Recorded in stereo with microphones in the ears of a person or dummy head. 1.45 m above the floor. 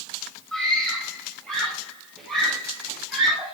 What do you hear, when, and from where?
0.5 s a scream: 5° left (ahead or behind), 9.5 m; by 3.5 s centre (ahead or behind), 11.5 m